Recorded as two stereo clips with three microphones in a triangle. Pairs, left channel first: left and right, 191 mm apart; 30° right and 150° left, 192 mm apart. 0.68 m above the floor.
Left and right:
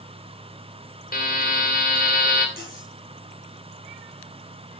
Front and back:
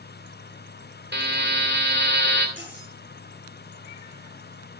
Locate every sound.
1.1 s a buzzer: 130° left, 2.5 m
2.6 s cutlery clinking: 130° left, 7.5 m